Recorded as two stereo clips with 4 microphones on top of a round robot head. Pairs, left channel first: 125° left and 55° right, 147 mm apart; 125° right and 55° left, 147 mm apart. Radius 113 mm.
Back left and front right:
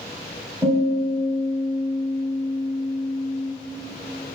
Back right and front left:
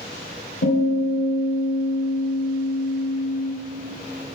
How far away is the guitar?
About 1.3 m.